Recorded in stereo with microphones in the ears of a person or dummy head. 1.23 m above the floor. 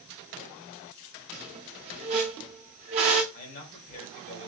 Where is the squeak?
25° right (ahead or behind), 0.7 m.